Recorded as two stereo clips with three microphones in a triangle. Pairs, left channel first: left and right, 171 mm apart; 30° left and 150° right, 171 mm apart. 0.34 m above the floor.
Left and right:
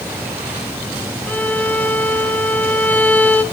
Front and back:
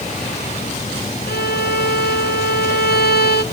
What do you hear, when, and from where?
1.3 s a violin: 10° left, 0.7 m